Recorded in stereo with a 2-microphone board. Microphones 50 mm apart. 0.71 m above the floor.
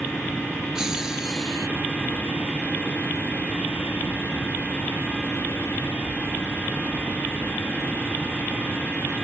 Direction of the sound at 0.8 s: 15° right (ahead or behind).